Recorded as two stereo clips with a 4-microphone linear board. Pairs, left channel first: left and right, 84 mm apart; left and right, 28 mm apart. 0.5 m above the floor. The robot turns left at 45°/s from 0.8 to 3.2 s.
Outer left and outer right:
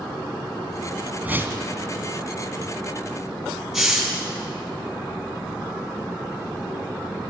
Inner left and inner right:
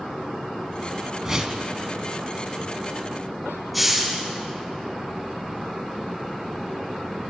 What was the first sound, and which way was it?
A whoosh, 20° right (ahead or behind).